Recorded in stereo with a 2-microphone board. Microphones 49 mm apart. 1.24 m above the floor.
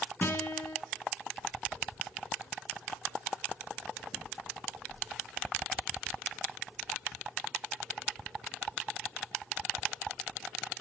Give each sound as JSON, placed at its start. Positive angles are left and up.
{"t": 0.2, "sound": "a guitar", "side_deg": 45, "distance_m": 3.0}